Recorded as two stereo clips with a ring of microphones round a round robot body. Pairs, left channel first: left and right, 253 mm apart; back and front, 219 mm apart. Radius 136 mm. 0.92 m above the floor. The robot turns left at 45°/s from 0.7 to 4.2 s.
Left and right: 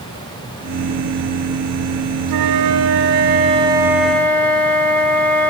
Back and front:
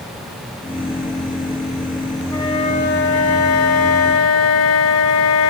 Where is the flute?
100° right, 1.1 m; by 5.5 s 175° left, 1.1 m.